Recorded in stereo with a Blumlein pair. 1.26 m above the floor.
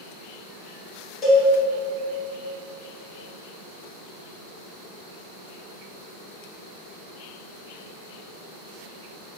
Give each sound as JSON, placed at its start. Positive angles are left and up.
{"t": 1.2, "sound": "a cowbell", "azimuth_deg": 20, "distance_m": 1.0}